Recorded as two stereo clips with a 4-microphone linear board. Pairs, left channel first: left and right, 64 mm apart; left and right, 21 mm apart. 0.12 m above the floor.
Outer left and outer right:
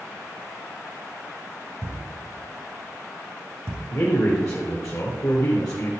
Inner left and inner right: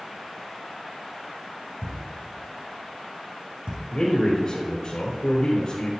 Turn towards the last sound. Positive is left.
turn(degrees=60)  # may be behind; listen again after turning